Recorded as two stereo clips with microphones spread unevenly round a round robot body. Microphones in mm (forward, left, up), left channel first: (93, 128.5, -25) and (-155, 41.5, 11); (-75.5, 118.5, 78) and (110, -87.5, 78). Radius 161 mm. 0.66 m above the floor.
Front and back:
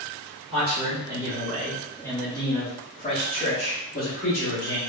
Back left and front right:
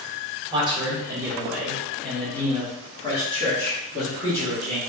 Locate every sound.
0.5 s a man speaking: 100° right, 1.2 m; by 4.8 s 65° left, 2.5 m